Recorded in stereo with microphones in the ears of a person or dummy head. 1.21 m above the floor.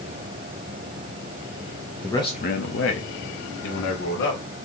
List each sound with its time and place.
2.0 s a man speaking: 5° left (ahead or behind), 0.7 m; by 4.4 s 70° left (ahead or behind), 2.5 m